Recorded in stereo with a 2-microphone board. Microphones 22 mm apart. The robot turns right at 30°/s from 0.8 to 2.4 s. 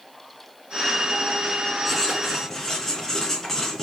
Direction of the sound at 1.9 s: 5° left (ahead or behind).